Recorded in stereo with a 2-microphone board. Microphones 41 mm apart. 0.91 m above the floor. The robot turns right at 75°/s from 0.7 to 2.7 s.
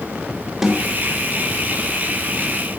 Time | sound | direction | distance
0.6 | a snare drum | 10° right (ahead or behind) | 3 m